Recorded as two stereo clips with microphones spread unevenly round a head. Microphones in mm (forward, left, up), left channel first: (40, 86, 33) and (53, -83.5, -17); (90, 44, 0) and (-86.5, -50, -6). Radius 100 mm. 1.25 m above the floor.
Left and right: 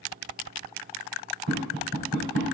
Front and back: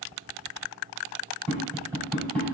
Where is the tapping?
50° right, 3 m.